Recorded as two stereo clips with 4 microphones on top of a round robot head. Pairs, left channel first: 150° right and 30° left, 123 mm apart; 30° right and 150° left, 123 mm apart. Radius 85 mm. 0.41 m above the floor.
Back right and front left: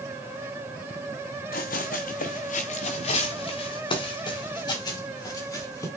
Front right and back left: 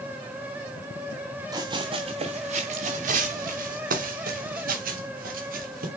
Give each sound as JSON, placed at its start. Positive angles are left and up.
{"t": 1.5, "sound": "running footsteps", "azimuth_deg": -150, "distance_m": 1.5}